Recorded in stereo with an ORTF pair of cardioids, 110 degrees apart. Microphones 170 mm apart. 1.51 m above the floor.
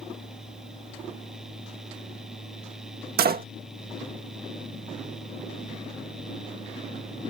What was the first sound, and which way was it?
A fan, 5° right.